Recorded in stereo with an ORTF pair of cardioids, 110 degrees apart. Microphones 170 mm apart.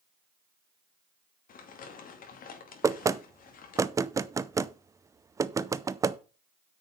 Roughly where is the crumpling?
Ahead left.